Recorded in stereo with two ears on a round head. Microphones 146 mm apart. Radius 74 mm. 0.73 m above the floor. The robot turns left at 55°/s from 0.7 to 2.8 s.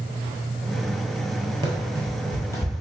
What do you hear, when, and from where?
1.6 s running footsteps: 30° right (ahead or behind), 0.8 m; by 2.7 s 30° left (ahead or behind), 1.0 m